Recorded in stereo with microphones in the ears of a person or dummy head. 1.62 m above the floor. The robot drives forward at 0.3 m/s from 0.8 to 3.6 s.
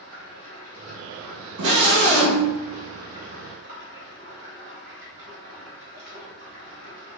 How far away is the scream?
About 0.7 m.